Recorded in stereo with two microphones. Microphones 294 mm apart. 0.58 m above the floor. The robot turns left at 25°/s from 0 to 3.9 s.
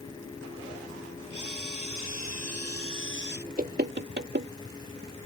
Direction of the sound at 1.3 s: 95° right.